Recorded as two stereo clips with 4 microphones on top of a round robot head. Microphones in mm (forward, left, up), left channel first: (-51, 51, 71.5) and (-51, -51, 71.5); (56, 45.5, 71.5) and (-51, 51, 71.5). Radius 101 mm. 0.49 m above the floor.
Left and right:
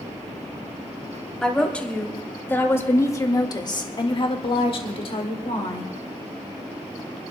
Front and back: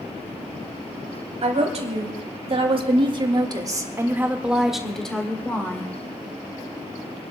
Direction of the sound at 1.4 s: 170° left.